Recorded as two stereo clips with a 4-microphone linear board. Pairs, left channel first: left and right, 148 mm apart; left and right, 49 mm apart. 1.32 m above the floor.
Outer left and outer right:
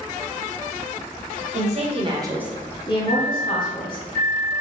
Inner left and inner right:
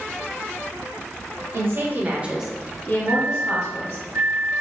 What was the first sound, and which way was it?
A woman speaking, 55° right (ahead or behind).